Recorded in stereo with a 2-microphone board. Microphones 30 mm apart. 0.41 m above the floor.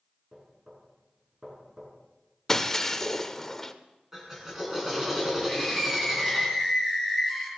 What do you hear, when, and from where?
0.3 s knocking: 25° right (ahead or behind), 5 m
2.5 s breaking glass: 15° left (ahead or behind), 0.7 m
4.1 s a drill: 10° right (ahead or behind), 3.5 m
5.5 s a scream: 5° right (ahead or behind), 6.5 m